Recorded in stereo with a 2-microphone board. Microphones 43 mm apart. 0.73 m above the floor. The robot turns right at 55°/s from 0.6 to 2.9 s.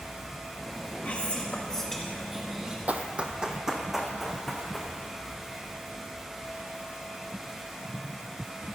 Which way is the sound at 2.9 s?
35° right (ahead or behind).